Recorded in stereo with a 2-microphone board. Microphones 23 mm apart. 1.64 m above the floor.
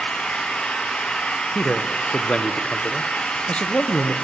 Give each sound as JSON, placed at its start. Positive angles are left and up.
{"t": 0.0, "sound": "an engine running", "side_deg": 70, "distance_m": 7.5}
{"t": 1.6, "sound": "a man speaking", "side_deg": 55, "distance_m": 1.0}